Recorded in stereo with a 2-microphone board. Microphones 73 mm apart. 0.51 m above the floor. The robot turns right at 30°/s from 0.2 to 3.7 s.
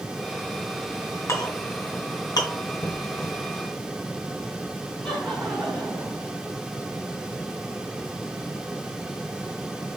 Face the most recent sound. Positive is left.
turn(degrees=10)  # may be behind; listen again after turning